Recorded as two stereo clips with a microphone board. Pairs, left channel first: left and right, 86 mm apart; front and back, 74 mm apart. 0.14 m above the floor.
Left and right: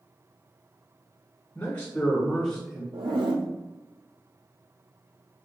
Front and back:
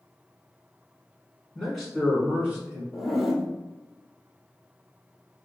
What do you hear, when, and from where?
1.6 s a man speaking: 85° left, 1.3 m; by 2.8 s 175° left, 1.3 m
2.9 s a zipper: 95° right, 0.7 m